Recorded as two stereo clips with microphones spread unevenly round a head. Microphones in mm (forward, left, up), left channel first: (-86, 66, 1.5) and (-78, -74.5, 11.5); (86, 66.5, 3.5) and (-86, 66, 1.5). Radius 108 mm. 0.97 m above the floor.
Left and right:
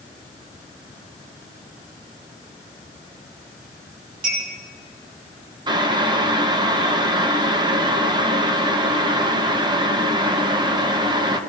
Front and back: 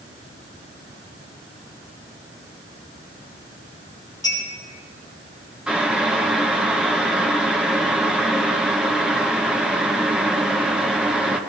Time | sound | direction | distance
4.2 | a clink | 75° right | 6.5 m
5.7 | boiling | 100° right | 0.9 m